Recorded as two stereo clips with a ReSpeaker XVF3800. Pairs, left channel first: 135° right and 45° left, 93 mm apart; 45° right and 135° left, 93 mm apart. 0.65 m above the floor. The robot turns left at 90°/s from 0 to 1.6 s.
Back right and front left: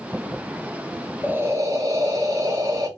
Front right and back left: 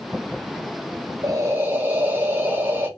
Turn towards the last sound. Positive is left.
turn(degrees=80)